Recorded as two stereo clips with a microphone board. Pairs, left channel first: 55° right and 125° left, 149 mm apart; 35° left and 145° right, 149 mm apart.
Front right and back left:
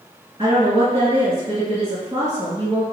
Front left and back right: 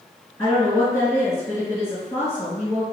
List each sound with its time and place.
0.4 s a woman speaking: 100° left, 1.9 m